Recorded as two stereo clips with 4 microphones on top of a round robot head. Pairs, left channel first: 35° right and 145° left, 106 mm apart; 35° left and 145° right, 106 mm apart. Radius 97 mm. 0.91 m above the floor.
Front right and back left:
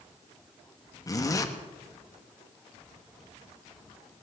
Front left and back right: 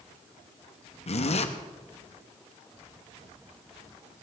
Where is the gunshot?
No gunshot in this recording.